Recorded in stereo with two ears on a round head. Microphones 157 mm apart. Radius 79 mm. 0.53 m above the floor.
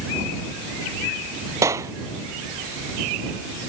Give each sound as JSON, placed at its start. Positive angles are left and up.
{"t": 1.6, "sound": "a clap", "side_deg": -15}